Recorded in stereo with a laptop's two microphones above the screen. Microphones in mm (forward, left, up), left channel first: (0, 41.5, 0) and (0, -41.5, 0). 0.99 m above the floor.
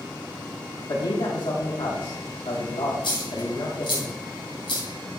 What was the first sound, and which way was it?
A man speaking, 70° left (ahead or behind).